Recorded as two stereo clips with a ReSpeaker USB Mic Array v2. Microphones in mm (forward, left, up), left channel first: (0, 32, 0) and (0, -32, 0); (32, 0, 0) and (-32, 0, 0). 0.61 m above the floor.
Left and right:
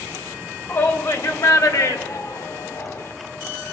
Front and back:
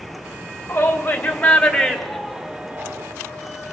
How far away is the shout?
About 2.5 m.